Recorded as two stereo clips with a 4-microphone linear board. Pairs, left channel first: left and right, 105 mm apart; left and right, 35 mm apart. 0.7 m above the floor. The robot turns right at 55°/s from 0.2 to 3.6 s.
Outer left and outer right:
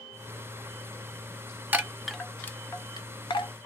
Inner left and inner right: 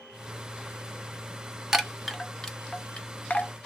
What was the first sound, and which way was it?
A chime, 15° right (ahead or behind).